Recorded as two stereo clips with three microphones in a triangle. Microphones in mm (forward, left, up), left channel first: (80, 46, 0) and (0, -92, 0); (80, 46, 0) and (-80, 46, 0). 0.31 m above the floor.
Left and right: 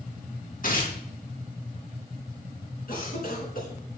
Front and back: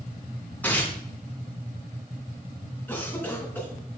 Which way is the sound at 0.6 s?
80° left.